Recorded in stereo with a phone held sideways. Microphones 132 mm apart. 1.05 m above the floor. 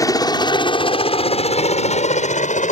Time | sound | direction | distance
0.0 | a helicopter | 25° left (ahead or behind) | ?